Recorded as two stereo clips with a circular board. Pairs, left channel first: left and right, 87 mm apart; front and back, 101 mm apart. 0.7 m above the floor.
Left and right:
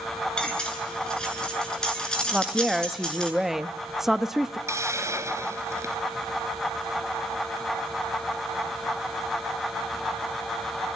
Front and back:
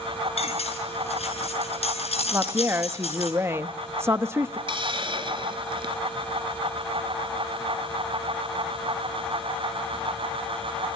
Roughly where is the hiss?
Behind right.